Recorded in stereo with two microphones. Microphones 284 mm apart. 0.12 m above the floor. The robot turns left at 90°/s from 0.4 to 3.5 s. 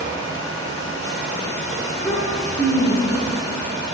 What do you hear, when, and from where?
1.9 s a child speaking: 25° left, 3 m; by 3.4 s 115° right, 3 m